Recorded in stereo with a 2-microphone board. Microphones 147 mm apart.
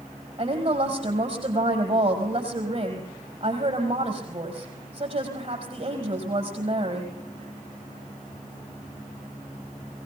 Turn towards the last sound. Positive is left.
turn(degrees=-45)  # may be behind; listen again after turning